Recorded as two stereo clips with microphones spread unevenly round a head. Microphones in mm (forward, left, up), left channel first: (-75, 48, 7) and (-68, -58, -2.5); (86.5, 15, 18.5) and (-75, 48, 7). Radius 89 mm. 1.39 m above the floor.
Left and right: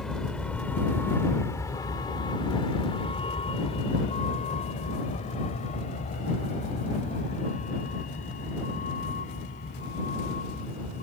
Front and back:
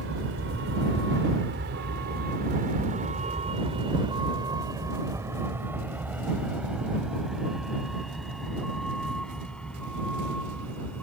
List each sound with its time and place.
0.0 s a vehicle: straight behind; by 11.0 s 70° left